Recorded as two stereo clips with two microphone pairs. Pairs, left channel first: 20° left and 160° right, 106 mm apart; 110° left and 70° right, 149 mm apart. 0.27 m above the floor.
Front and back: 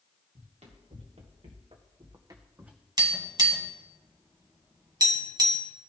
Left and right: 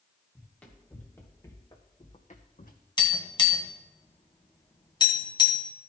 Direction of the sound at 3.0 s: 160° left.